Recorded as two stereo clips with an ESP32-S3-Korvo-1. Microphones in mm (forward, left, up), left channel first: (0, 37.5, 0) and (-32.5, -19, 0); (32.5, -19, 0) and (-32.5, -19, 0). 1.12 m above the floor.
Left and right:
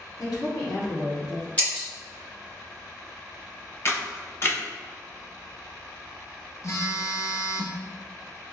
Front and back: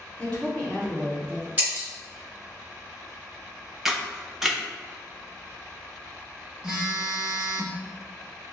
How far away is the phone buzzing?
About 0.7 m.